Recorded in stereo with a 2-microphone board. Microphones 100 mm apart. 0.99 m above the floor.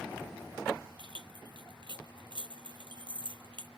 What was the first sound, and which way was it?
Keys jangling, 55° right (ahead or behind).